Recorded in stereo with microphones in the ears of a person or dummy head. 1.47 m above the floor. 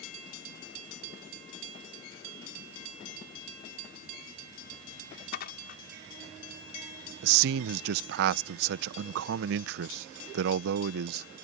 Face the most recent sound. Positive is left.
turn(degrees=-70)  # may be behind; listen again after turning